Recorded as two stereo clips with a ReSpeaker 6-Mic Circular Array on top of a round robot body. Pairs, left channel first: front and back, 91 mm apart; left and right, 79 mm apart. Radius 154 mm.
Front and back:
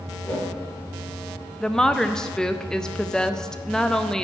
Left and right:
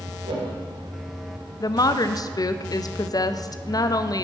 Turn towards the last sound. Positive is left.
turn(degrees=80)